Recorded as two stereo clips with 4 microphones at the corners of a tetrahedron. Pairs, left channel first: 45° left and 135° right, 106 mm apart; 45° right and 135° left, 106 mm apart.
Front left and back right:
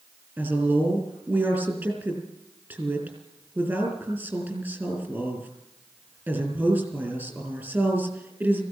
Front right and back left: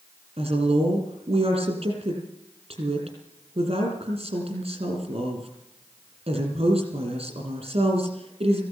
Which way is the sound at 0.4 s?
155° left.